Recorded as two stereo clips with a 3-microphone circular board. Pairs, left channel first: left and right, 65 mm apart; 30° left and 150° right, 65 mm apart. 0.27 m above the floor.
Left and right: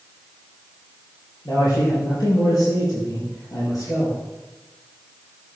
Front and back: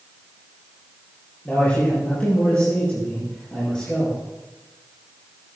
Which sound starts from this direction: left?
A man speaking, at 1.4 s.